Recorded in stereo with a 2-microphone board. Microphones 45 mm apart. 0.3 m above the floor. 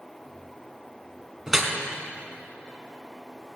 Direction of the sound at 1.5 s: 5° right (ahead or behind).